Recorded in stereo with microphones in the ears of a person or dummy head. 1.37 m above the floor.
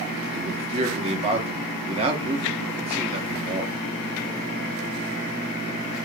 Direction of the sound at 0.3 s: 35° right (ahead or behind).